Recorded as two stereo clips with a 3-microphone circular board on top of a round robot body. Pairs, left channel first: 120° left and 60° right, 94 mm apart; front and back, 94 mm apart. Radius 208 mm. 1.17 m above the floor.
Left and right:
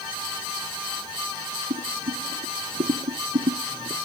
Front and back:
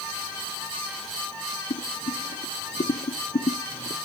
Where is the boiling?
30° right.